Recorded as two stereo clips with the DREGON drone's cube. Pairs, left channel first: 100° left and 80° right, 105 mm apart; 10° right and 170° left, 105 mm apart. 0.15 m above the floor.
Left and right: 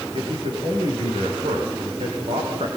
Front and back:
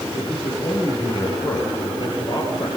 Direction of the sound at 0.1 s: 55° right.